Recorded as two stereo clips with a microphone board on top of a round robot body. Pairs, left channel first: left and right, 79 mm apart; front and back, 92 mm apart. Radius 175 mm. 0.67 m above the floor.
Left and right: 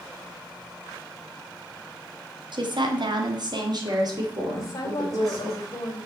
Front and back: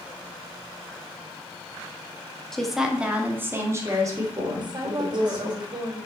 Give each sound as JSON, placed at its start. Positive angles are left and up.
{"t": 2.5, "sound": "a woman speaking", "azimuth_deg": -85, "distance_m": 2.0}
{"t": 4.5, "sound": "a woman speaking", "azimuth_deg": 140, "distance_m": 3.0}